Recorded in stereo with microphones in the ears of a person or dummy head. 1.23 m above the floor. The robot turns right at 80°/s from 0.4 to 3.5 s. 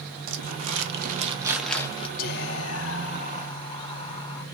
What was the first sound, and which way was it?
Crumpling, 100° right.